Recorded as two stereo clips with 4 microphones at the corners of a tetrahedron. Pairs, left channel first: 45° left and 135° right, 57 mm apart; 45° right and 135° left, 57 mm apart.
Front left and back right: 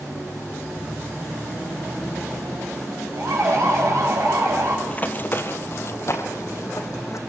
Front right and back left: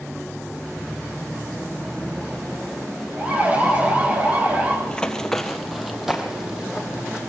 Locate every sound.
3.2 s a siren: 160° right, 9.5 m; by 4.8 s 165° right, 7.5 m
4.9 s running footsteps: 10° left, 1.5 m; by 7.2 s 60° left, 3 m